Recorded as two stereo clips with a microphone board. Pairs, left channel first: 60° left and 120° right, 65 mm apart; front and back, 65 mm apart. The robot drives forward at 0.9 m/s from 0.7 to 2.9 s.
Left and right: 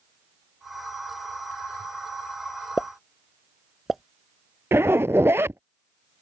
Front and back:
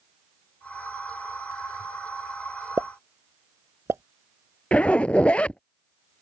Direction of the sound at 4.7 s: 70° right.